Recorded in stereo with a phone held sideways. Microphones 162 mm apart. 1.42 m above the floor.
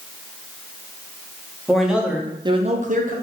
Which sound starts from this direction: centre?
A man speaking, at 1.7 s.